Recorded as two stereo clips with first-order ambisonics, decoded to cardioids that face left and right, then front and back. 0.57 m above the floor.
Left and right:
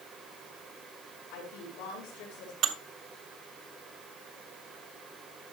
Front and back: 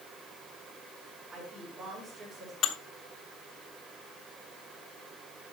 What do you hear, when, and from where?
1.3 s a woman speaking: 105° left, 5.5 m
2.6 s dishes clattering: 50° right, 0.9 m